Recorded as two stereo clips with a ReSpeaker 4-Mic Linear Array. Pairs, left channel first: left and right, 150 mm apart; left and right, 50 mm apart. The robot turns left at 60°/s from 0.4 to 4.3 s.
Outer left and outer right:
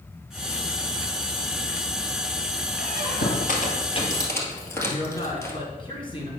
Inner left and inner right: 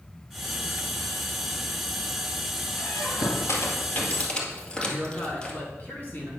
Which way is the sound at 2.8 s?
70° left (ahead or behind).